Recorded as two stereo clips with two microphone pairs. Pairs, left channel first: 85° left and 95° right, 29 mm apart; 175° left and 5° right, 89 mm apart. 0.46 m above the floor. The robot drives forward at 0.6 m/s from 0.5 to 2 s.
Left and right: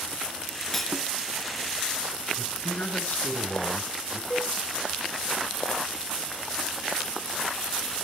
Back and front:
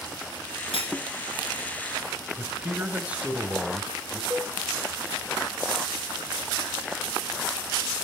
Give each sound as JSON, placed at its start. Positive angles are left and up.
{"t": 0.7, "sound": "cutlery clinking", "azimuth_deg": 170, "distance_m": 4.5}
{"t": 2.4, "sound": "a man speaking", "azimuth_deg": 70, "distance_m": 2.5}
{"t": 4.3, "sound": "a cowbell", "azimuth_deg": 50, "distance_m": 2.5}